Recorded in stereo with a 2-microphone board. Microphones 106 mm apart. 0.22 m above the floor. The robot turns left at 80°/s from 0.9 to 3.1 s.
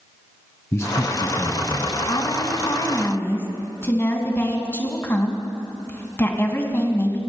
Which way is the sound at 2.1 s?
115° left.